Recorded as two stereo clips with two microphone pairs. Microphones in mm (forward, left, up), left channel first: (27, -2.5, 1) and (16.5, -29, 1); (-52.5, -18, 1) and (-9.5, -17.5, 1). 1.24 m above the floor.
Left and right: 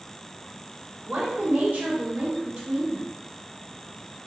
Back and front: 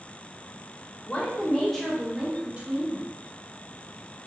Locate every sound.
1.1 s a woman speaking: 120° right, 1.0 m; by 3.1 s 45° right, 1.0 m